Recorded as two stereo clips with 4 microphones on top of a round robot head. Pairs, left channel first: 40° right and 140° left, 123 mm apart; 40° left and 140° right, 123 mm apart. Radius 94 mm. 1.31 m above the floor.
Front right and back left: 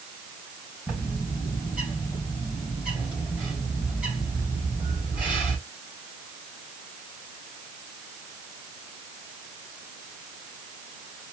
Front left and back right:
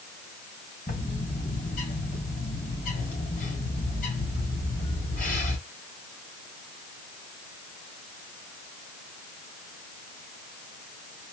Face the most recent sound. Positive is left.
turn(degrees=55)